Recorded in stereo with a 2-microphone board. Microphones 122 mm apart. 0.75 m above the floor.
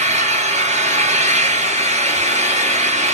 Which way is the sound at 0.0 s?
75° right (ahead or behind).